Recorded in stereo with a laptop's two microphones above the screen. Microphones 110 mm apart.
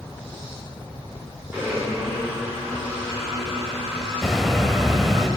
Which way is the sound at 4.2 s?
Centre (ahead or behind).